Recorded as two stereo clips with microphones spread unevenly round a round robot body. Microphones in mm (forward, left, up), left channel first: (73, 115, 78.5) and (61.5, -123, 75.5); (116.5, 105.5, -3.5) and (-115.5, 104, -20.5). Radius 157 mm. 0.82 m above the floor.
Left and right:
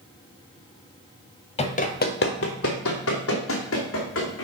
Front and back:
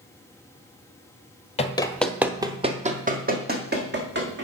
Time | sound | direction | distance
1.6 | running footsteps | 35° left | 1.0 m